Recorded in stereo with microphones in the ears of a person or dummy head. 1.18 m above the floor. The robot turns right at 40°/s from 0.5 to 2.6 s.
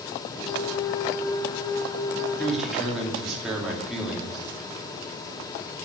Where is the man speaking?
5° left (ahead or behind), 2.5 m; by 4.4 s centre (ahead or behind), 2.5 m.